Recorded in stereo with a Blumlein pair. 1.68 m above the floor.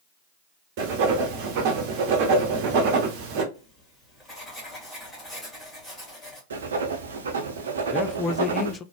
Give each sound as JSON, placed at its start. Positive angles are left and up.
{"t": 0.8, "sound": "writing", "azimuth_deg": -45, "distance_m": 1.3}
{"t": 3.5, "sound": "writing", "azimuth_deg": 15, "distance_m": 2.5}
{"t": 6.5, "sound": "writing", "azimuth_deg": -65, "distance_m": 0.9}
{"t": 7.9, "sound": "a man speaking", "azimuth_deg": 20, "distance_m": 0.5}